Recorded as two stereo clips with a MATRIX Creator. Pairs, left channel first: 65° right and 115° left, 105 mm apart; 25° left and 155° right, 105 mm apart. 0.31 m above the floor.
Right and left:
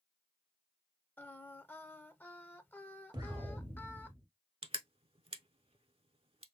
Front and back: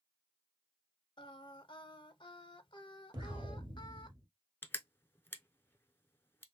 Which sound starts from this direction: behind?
An explosion, at 3.1 s.